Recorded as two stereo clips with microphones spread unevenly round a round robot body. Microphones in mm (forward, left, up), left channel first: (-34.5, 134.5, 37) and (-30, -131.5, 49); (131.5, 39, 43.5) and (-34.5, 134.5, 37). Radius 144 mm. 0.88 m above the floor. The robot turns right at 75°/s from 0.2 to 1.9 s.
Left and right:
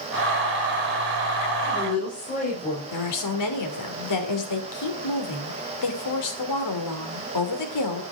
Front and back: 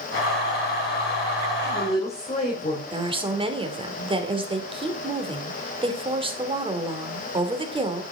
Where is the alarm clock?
No alarm clock in this recording.